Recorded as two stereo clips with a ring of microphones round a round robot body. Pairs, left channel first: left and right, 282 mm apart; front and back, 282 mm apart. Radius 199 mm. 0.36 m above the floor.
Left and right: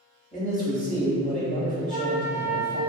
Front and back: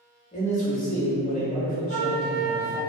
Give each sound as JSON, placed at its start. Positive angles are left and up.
{"t": 0.3, "sound": "a man speaking", "azimuth_deg": 45, "distance_m": 1.1}
{"t": 1.9, "sound": "a flute", "azimuth_deg": 130, "distance_m": 0.6}